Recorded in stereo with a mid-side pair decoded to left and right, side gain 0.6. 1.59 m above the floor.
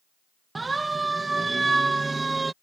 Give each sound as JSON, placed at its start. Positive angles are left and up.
{"t": 0.6, "sound": "a siren", "azimuth_deg": -20}